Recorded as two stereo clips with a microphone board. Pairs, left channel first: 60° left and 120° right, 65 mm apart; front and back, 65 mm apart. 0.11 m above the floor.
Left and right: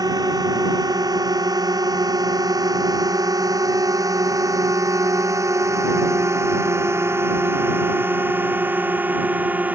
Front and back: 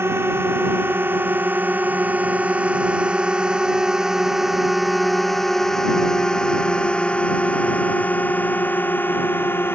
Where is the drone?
130° right; by 9.8 s 55° right.